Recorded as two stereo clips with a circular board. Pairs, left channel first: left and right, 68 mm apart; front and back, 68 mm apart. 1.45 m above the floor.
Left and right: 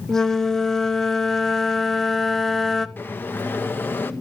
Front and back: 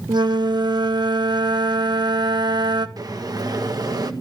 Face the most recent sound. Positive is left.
turn(degrees=150)